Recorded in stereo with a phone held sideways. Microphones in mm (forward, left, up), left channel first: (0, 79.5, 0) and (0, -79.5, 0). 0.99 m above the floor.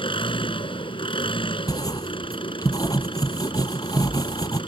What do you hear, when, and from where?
0.0 s an engine running: 30° left (ahead or behind)
1.7 s writing: 25° left (ahead or behind)